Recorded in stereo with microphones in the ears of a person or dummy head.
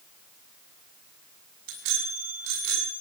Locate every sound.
1.7 s a bicycle bell: 75° right (ahead or behind), 7.5 m